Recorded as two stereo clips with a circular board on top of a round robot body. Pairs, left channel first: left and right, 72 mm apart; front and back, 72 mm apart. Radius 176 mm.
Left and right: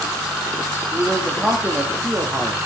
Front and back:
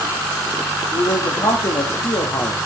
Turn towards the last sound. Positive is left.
turn(degrees=-20)